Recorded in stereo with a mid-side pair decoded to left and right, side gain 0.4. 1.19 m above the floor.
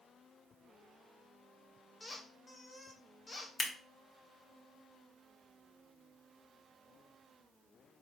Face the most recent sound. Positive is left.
turn(degrees=45)